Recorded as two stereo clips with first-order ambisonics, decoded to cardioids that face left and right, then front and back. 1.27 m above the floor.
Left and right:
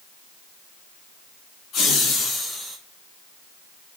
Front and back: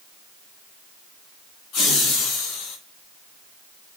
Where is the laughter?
40° left, 1.8 m; by 2.8 s 5° right, 1.1 m.